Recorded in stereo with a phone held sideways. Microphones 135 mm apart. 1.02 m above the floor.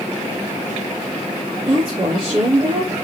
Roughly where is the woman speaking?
Right.